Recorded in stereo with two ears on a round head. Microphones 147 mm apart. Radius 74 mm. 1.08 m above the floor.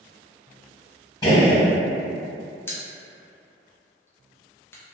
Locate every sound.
1.2 s a gunshot: 25° left (ahead or behind), 1.3 m
2.7 s a pop: 15° left (ahead or behind), 0.6 m